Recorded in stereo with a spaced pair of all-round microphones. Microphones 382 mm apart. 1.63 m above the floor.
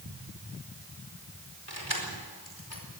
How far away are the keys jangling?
About 4.5 m.